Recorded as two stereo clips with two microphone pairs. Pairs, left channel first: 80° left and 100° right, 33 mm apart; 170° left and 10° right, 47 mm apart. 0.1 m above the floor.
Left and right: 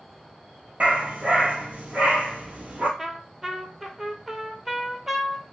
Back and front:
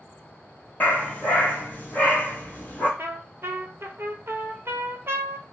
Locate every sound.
0.8 s a dog barking: 135° right, 0.8 m
3.0 s a trumpet: 20° right, 0.5 m